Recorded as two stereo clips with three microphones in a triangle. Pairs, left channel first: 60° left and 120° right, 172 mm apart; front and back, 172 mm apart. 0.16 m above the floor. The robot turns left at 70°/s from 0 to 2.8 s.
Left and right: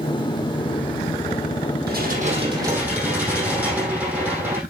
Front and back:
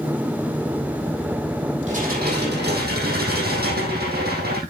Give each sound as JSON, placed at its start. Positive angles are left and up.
{"t": 1.9, "sound": "dishes clattering", "azimuth_deg": -130, "distance_m": 4.5}